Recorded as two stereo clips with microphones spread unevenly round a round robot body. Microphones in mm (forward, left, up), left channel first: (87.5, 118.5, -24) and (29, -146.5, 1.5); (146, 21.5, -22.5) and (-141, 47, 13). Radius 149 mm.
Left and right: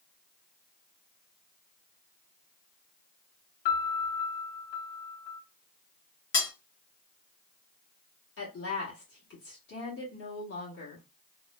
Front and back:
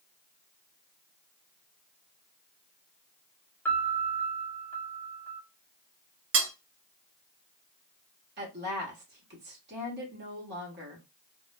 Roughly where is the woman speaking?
Behind left.